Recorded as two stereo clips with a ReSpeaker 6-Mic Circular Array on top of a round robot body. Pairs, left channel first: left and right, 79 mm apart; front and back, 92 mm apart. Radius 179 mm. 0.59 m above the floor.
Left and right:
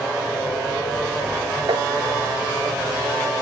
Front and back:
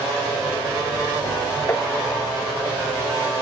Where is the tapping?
65° right.